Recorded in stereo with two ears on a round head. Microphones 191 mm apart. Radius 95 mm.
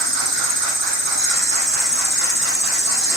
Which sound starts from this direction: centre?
An insect, at 0.0 s.